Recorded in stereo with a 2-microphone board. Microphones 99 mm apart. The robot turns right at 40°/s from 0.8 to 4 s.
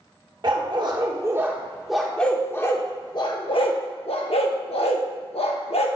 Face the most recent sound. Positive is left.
turn(degrees=75)  # may be behind; listen again after turning